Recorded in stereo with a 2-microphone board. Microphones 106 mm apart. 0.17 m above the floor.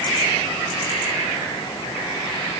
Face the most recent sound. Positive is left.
No sound to turn to.